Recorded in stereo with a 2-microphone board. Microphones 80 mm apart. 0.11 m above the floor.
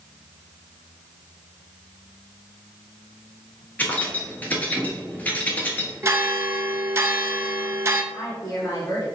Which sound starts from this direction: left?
A woman speaking, at 8.1 s.